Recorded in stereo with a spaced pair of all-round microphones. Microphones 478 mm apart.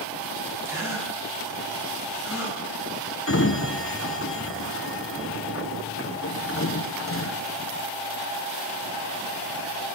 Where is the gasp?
5° right (ahead or behind), 5.5 m.